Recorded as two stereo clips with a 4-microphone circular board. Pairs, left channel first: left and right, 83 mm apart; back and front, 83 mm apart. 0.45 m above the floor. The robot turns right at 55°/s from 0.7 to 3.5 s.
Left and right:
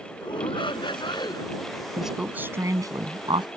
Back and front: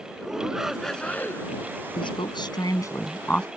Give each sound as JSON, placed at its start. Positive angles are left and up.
{"t": 0.2, "sound": "a shout", "azimuth_deg": 85}
{"t": 2.0, "sound": "a woman speaking", "azimuth_deg": 180}